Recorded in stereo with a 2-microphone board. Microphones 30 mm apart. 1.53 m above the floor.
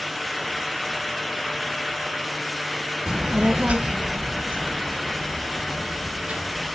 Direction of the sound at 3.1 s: 35° right (ahead or behind).